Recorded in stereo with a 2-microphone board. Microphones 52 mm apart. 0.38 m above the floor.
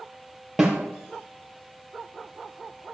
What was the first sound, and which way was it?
A snare drum, 5° right (ahead or behind).